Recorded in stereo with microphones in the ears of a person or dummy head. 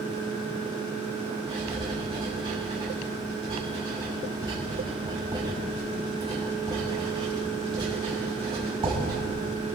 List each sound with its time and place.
1.5 s writing: 25° right (ahead or behind), 6.5 m